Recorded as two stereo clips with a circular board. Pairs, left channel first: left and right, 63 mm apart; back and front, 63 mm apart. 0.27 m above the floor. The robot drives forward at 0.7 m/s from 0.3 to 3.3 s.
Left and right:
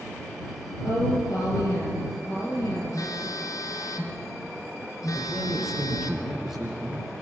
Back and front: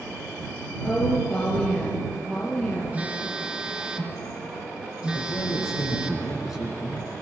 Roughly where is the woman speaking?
Left.